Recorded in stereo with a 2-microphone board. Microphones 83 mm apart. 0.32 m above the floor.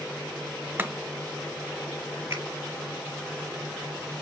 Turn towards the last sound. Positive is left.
turn(degrees=-30)  # may be behind; listen again after turning